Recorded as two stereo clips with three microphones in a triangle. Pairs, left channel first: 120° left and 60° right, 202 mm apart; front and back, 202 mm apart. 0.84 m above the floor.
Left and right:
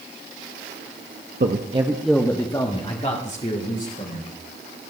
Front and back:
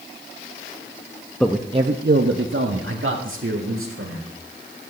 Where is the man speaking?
85° right, 0.7 m; by 4.3 s 165° left, 2.5 m.